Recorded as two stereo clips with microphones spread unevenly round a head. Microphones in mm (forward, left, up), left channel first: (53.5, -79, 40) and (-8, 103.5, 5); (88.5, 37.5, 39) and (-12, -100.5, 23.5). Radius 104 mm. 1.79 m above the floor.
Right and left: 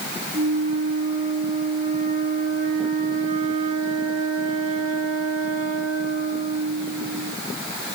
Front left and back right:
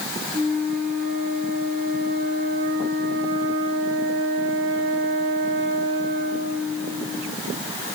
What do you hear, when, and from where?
0.3 s a flute: 165° left, 6 m